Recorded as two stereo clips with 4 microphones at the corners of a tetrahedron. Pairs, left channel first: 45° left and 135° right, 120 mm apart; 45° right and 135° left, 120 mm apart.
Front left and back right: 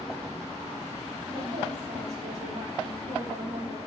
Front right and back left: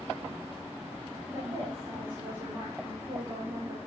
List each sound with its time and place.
1.3 s a woman speaking: 170° right, 4 m